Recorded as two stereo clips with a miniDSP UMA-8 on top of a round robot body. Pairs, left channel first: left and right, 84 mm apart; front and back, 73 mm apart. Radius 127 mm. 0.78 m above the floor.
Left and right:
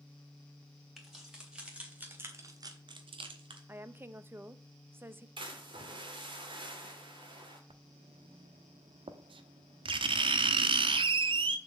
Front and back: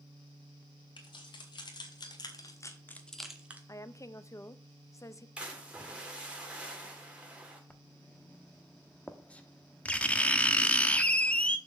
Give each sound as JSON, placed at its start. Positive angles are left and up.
{"t": 1.0, "sound": "keys jangling", "azimuth_deg": 0, "distance_m": 3.5}
{"t": 3.7, "sound": "a woman speaking", "azimuth_deg": -30, "distance_m": 0.8}
{"t": 5.4, "sound": "a splash", "azimuth_deg": -105, "distance_m": 2.5}
{"t": 7.7, "sound": "writing", "azimuth_deg": -75, "distance_m": 0.8}